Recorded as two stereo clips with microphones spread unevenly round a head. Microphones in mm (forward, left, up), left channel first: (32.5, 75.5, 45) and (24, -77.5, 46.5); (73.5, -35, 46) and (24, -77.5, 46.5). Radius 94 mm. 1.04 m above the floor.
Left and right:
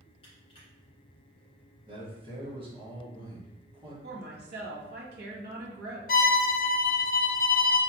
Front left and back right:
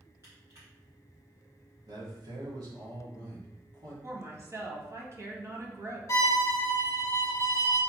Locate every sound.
0.2 s crushing: 145° left, 1.8 m
1.9 s a man speaking: 150° right, 1.7 m
4.0 s a woman speaking: 95° right, 1.3 m
6.1 s a violin: 80° left, 0.7 m